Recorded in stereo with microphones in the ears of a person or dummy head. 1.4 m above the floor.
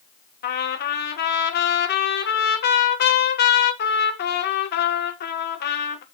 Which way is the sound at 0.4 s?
50° left (ahead or behind).